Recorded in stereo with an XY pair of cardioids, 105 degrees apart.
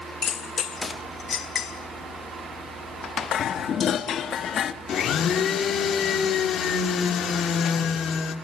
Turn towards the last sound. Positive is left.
turn(degrees=60)